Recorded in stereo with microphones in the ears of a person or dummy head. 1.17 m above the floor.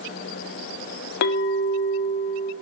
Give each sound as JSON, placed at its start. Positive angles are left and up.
{"t": 1.2, "sound": "a clink", "side_deg": 65, "distance_m": 0.5}